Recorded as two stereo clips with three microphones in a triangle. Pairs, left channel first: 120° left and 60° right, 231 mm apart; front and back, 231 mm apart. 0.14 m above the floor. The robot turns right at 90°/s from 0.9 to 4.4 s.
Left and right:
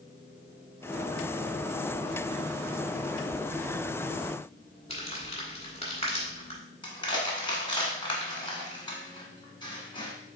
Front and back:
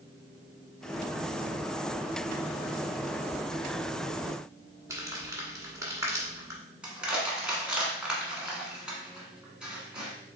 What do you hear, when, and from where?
4.9 s crumpling: 125° left, 1.5 m
6.8 s crushing: 100° left, 1.3 m